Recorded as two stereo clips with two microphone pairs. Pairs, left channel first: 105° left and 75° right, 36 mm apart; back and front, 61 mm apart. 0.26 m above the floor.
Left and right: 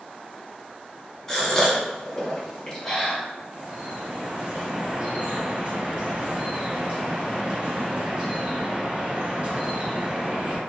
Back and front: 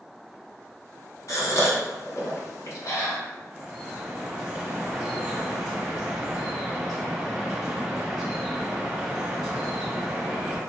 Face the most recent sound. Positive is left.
turn(degrees=-80)